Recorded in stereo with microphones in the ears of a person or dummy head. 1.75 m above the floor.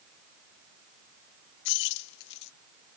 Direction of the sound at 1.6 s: 70° left (ahead or behind).